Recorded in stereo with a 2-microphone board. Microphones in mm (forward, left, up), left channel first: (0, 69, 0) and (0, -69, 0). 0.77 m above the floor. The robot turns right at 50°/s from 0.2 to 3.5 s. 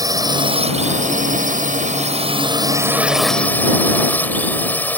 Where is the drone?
150° right; by 5.0 s 15° left.